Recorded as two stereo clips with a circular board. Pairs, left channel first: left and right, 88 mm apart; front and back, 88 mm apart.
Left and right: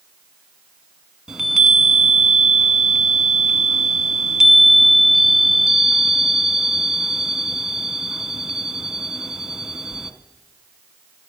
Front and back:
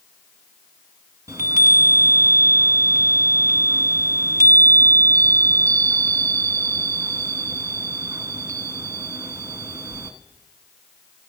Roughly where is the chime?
Behind.